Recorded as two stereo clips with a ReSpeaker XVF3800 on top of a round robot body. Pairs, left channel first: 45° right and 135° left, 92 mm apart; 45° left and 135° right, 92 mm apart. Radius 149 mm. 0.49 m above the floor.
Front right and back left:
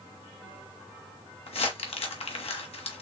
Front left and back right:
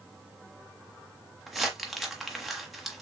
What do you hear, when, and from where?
1.5 s crumpling: 45° right, 1.3 m